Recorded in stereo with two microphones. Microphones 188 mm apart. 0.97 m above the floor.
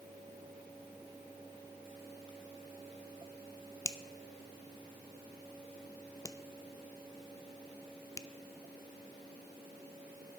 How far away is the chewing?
No chewing in this recording.